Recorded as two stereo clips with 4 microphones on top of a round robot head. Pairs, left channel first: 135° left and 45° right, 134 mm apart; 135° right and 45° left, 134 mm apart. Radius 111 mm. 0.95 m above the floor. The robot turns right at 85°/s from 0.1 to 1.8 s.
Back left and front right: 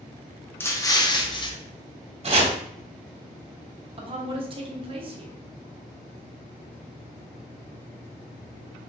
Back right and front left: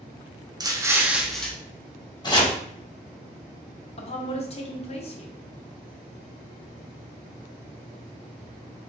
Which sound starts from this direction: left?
An explosion, at 0.6 s.